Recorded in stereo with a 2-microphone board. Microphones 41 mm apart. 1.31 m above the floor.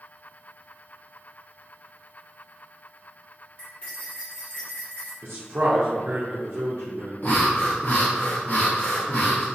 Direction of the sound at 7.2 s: 50° left (ahead or behind).